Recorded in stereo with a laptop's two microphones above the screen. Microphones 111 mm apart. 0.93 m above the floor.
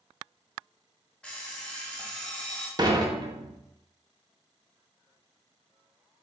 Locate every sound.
1.2 s an alarm clock: 10° left (ahead or behind), 0.9 m
2.8 s dishes clattering: 35° right (ahead or behind), 0.6 m